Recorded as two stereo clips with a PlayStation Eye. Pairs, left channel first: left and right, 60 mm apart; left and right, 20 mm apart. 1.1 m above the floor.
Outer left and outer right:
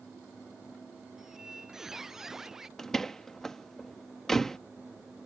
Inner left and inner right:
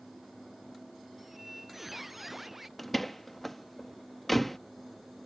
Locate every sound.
1.2 s a squeak: 10° right (ahead or behind)
2.8 s a door slam: 10° left (ahead or behind)